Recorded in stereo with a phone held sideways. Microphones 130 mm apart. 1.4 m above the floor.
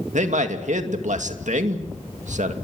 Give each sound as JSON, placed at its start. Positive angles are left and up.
{"t": 0.1, "sound": "a man speaking", "side_deg": -70, "distance_m": 2.0}